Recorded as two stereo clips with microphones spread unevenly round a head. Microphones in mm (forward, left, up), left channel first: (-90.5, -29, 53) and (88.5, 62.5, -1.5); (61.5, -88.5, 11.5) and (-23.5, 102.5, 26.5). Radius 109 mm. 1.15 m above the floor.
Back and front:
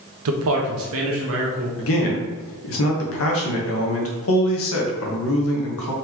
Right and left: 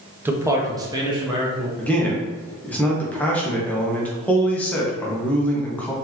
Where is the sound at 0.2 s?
35° left, 0.8 m; by 1.7 s 45° left, 1.7 m.